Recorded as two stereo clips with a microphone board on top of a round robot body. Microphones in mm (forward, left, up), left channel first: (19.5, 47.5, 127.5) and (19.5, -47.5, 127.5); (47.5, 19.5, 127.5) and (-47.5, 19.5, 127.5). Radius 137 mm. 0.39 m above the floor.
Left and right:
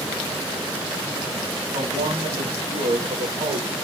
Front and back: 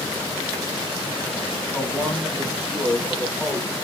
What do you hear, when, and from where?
1.7 s a man speaking: 90° right, 4 m; by 3.7 s 100° right, 4.5 m